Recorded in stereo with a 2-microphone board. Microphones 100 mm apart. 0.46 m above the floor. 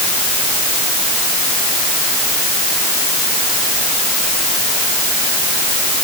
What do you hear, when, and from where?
Only background noise.